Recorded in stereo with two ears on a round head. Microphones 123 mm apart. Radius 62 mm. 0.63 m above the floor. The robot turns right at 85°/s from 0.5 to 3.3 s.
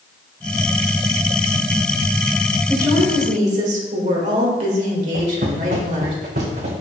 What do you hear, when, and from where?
2.7 s a woman speaking: 165° right, 2 m; by 6.1 s 115° right, 2 m
5.1 s footsteps: 75° right (ahead or behind), 3 m; by 6.7 s 55° right (ahead or behind), 3 m